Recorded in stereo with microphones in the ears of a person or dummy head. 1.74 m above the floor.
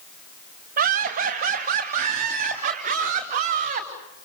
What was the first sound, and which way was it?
Laughter, 45° right (ahead or behind).